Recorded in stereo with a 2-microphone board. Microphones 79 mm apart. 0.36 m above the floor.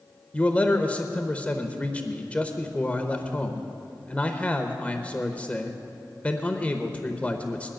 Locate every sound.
0.3 s a man speaking: 20° left (ahead or behind), 0.8 m